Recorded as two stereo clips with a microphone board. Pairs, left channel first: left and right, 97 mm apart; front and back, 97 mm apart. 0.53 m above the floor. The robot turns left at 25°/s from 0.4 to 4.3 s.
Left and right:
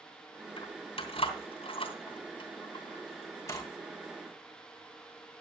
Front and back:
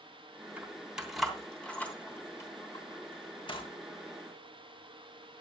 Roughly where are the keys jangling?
Left.